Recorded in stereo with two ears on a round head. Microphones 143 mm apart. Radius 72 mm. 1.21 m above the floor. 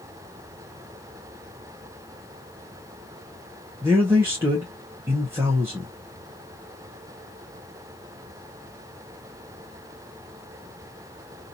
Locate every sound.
3.8 s a man speaking: 15° right (ahead or behind), 0.8 m